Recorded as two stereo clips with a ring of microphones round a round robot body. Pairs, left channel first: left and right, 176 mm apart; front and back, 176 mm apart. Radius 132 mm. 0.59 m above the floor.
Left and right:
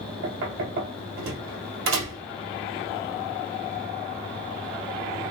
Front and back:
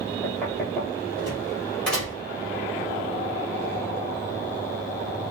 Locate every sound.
0.2 s knocking: 90° right, 1.7 m